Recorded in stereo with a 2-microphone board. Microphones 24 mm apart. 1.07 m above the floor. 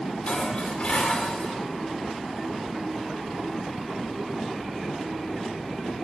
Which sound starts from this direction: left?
Dishes clattering, at 0.3 s.